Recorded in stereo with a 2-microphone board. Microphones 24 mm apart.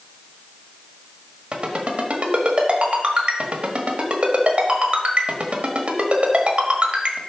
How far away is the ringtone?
About 1.3 m.